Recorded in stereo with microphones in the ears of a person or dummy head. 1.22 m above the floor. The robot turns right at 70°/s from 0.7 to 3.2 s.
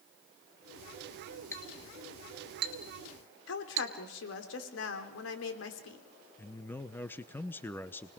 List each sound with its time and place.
1.5 s a clink: 15° left (ahead or behind), 1.7 m; by 3.9 s 70° right (ahead or behind), 1.7 m
3.5 s a woman speaking: 75° left (ahead or behind), 3 m
6.4 s a man speaking: 10° left (ahead or behind), 0.7 m